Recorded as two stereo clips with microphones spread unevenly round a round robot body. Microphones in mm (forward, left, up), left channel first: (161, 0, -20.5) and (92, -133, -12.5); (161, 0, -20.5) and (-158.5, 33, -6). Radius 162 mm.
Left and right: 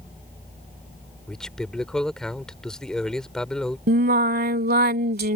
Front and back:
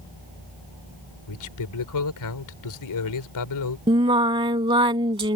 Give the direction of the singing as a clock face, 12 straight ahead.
4 o'clock.